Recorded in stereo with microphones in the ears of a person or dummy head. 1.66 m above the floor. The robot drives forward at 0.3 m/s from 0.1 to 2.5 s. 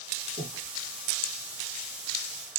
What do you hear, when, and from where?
0.4 s breathing: 35° left (ahead or behind), 0.9 m